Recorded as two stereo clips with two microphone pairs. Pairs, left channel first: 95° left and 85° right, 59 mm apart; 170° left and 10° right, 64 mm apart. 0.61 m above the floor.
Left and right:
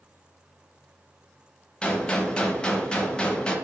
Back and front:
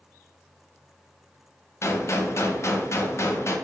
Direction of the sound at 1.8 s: 170° left.